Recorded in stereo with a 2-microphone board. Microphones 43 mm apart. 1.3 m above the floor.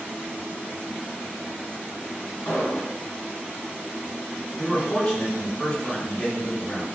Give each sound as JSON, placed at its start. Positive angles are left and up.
{"t": 2.5, "sound": "an explosion", "side_deg": 55, "distance_m": 1.5}
{"t": 4.6, "sound": "a man speaking", "side_deg": 25, "distance_m": 1.0}